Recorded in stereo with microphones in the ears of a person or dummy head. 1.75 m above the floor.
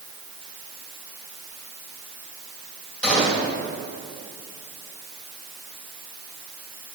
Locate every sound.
3.0 s a gunshot: 5° left (ahead or behind), 2 m